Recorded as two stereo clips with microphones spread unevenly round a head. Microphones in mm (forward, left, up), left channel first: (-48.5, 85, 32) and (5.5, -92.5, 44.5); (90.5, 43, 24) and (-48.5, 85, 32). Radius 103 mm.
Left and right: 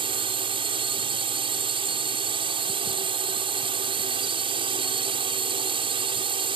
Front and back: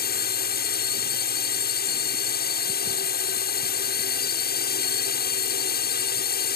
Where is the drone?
5° right.